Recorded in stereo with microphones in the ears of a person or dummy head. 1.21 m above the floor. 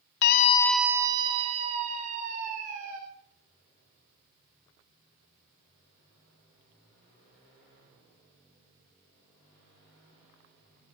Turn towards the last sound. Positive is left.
turn(degrees=-45)  # may be behind; listen again after turning